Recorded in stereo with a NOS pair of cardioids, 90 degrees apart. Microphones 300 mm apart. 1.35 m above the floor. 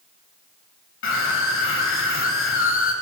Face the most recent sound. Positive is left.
turn(degrees=45)